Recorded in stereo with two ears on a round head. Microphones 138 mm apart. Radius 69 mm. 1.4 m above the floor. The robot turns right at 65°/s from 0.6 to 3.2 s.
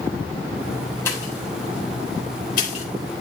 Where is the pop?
15° left (ahead or behind), 3 m; by 2.9 s 45° left (ahead or behind), 3 m.